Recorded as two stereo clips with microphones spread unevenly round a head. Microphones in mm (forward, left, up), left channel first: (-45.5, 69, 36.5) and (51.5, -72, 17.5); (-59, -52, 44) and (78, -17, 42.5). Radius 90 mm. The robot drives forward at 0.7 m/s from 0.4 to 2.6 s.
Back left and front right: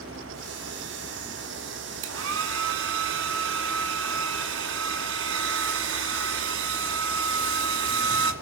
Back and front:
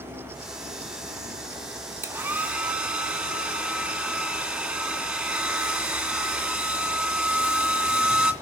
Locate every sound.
2.0 s a hair dryer: 60° right, 2.5 m; by 8.3 s 70° right, 2.5 m